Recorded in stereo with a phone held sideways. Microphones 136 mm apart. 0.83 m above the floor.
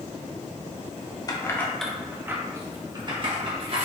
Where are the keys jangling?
30° left (ahead or behind), 0.7 m; by 3.9 s 50° right (ahead or behind), 1.5 m.